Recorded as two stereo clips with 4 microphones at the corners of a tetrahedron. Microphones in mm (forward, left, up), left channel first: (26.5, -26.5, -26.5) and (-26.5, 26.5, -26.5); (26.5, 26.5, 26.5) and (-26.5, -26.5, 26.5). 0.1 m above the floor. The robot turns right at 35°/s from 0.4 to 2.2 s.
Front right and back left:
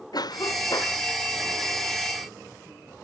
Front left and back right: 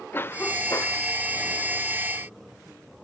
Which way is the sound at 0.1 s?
15° right.